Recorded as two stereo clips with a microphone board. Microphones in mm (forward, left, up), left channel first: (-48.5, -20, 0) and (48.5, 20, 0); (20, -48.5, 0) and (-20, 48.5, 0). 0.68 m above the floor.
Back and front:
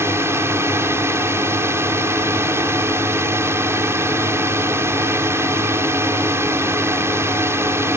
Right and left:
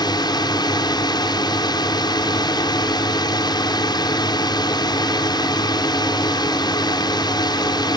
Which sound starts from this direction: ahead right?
A drone, at 0.0 s.